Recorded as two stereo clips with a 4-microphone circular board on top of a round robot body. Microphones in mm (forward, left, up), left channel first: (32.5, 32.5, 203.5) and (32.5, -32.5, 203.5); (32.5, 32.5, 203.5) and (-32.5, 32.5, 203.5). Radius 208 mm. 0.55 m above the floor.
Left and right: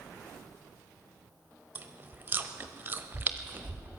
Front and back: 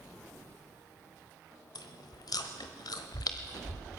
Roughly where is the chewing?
Ahead right.